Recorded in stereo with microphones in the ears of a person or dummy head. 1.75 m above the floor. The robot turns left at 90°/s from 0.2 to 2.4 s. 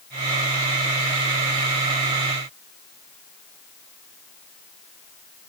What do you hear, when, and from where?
Only background noise.